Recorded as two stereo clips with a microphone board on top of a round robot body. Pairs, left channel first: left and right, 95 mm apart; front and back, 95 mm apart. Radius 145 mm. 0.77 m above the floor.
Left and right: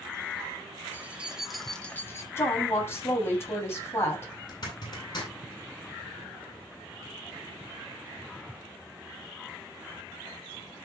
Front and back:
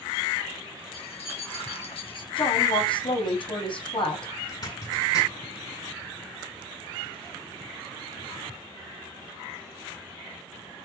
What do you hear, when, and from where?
0.9 s keys jangling: 20° right, 2.5 m; by 2.3 s 30° left, 1.6 m
2.4 s a woman speaking: 25° left, 7.5 m
4.5 s a zipper: 45° left, 9.5 m